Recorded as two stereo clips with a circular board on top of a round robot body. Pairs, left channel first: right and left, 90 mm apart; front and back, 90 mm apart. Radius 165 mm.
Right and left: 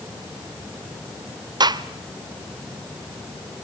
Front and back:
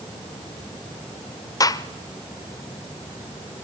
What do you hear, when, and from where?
1.6 s a gunshot: 50° left, 1.0 m